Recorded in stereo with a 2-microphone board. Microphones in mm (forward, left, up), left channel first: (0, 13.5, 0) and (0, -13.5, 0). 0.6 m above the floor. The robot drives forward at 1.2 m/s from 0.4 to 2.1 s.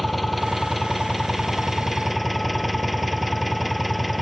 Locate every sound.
0.0 s an engine running: 5° right (ahead or behind)